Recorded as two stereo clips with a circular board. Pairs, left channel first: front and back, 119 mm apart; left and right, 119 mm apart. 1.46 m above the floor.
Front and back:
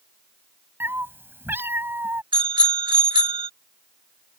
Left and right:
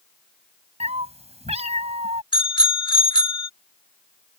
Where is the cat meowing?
110° right.